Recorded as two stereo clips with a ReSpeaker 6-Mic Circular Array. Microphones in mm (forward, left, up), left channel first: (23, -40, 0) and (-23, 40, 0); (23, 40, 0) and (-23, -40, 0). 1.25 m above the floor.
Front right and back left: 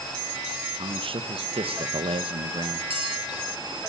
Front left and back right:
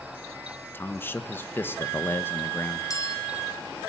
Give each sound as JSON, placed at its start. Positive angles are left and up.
{"t": 0.7, "sound": "a man speaking", "azimuth_deg": 125, "distance_m": 1.3}
{"t": 2.9, "sound": "a bell", "azimuth_deg": 110, "distance_m": 4.0}